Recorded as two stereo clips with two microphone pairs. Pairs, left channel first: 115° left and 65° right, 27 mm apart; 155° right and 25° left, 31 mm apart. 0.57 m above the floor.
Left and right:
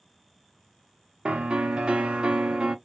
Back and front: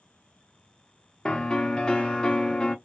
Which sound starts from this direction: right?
A piano, at 1.2 s.